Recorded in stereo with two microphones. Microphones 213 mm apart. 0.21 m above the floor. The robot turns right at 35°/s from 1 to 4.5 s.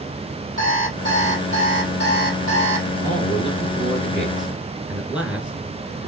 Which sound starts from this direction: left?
An alarm clock, at 0.6 s.